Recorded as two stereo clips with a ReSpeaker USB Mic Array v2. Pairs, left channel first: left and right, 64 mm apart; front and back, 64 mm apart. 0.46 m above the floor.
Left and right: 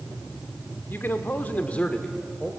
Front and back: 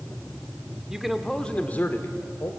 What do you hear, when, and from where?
0.9 s a man speaking: 105° left, 1.2 m; by 2.5 s 10° left, 1.6 m